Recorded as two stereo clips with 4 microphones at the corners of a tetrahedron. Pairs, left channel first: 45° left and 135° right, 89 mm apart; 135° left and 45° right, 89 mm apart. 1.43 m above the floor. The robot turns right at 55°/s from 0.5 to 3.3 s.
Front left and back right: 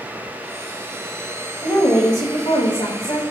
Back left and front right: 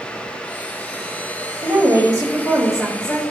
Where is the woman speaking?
20° right, 2 m; by 3.2 s 65° left, 2 m.